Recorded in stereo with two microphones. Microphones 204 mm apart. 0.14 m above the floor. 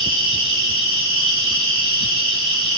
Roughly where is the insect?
Right.